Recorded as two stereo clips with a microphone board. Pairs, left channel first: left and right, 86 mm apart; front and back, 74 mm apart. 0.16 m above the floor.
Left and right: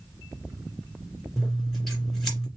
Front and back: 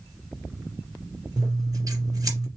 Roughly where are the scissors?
Behind.